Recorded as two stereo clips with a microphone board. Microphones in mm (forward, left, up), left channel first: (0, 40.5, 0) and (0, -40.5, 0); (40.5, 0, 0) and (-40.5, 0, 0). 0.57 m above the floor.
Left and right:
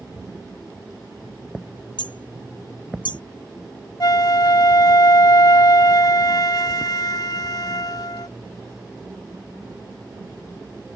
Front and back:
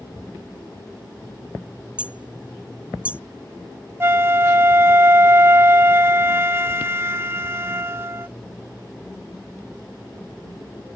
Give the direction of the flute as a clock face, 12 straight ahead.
8 o'clock.